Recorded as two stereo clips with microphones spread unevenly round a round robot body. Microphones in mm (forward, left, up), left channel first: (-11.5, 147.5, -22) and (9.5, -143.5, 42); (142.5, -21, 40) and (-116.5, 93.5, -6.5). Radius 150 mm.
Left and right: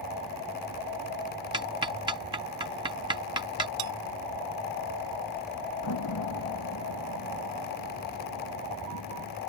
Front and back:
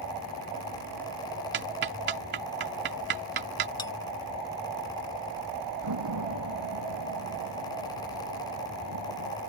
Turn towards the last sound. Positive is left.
turn(degrees=130)